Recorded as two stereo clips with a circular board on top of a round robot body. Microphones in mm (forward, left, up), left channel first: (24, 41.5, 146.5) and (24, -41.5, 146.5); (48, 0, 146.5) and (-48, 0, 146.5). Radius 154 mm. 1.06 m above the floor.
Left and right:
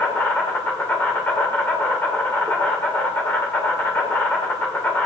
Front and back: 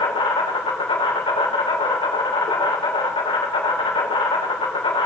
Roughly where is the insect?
Ahead.